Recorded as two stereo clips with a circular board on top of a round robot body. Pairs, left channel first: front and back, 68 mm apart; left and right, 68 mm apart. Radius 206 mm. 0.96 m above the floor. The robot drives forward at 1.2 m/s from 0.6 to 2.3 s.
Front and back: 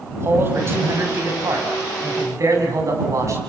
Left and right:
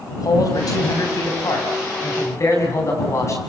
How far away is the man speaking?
About 6.5 m.